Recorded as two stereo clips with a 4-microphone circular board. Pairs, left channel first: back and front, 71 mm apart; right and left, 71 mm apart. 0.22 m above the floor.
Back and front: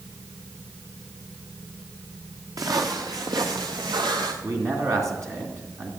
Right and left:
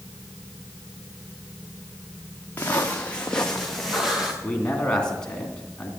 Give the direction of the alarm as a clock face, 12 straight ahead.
I don't hear an alarm.